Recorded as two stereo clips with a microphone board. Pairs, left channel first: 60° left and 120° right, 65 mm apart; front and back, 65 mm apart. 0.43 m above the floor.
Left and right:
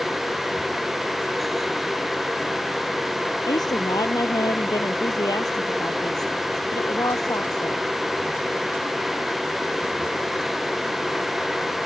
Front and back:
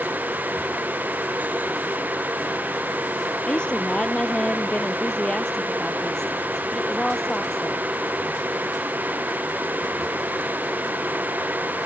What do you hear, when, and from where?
3.5 s a woman speaking: 75° left; by 7.9 s 85° left